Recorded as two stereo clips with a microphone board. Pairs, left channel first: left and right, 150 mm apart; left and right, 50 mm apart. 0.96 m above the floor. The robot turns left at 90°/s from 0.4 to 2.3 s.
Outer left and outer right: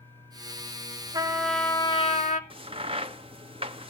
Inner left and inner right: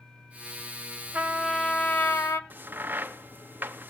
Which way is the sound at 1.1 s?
150° right.